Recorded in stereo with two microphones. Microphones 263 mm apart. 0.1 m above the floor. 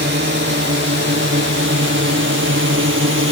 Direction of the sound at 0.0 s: 45° right (ahead or behind).